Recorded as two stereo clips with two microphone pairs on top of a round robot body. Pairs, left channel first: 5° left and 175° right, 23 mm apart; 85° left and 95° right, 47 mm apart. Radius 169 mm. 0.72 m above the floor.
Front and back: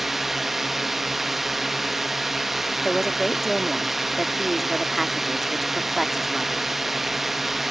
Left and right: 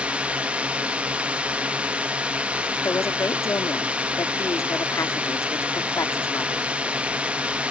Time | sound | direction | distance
0.0 | a drone | 115° right | ?
2.8 | a woman speaking | 100° left | ?